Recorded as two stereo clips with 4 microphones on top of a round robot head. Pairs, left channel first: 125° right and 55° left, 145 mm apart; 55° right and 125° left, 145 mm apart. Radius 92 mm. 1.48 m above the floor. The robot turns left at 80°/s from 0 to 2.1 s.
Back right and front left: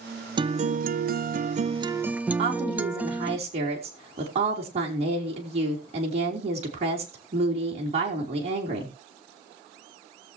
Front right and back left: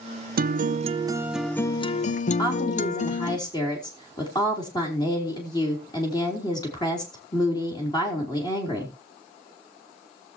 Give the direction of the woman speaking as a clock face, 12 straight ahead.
12 o'clock.